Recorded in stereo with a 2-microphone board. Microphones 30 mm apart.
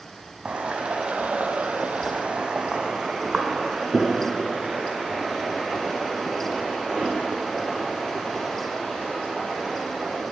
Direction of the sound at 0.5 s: 30° right (ahead or behind).